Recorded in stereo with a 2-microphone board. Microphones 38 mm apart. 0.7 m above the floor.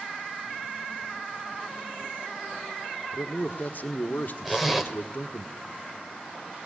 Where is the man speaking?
55° left (ahead or behind), 1.5 m.